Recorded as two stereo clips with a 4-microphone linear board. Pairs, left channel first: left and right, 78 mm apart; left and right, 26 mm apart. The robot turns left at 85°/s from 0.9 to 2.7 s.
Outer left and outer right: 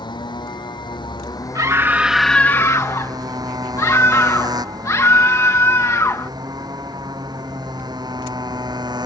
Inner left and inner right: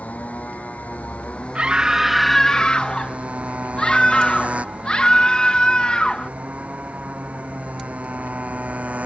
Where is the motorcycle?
80° left; by 9.1 s 65° right (ahead or behind).